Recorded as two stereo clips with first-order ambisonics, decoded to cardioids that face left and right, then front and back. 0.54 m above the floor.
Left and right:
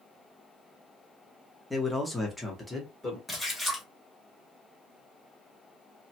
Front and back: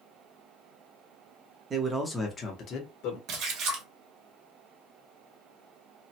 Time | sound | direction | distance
1.7 | a man speaking | 165° left | 0.7 m
3.3 | a splash | 175° left | 0.9 m